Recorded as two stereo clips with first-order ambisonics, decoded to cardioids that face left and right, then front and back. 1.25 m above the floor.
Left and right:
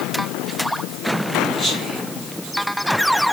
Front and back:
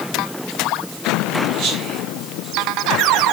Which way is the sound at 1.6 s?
160° right.